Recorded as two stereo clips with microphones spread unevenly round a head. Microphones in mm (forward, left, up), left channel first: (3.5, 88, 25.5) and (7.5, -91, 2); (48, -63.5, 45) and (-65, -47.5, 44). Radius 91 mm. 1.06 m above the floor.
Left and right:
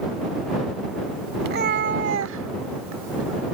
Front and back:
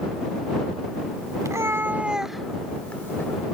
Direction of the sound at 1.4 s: 130° right.